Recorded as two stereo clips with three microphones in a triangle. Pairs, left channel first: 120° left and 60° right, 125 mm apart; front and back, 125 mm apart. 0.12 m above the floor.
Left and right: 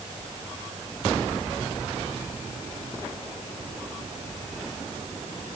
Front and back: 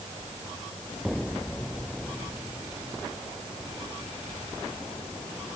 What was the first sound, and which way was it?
Only background noise.